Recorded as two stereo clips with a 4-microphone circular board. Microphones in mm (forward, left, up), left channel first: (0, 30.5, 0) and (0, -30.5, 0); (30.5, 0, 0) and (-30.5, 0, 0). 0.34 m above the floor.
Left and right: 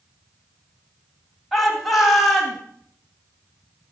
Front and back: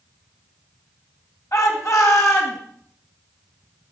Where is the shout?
Straight ahead, 2.5 m.